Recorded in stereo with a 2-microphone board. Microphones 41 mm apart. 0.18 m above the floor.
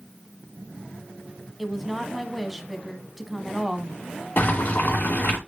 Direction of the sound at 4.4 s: 50° left (ahead or behind).